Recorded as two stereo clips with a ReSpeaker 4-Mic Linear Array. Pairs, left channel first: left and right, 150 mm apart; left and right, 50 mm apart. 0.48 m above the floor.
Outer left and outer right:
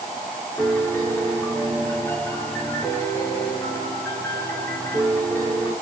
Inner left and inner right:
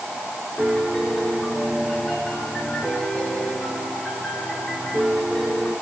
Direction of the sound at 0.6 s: 15° left (ahead or behind).